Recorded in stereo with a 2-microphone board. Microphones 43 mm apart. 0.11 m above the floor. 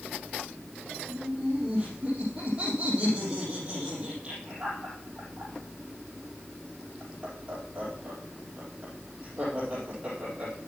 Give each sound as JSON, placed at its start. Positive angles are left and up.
{"t": 1.1, "sound": "laughter", "side_deg": -20, "distance_m": 4.0}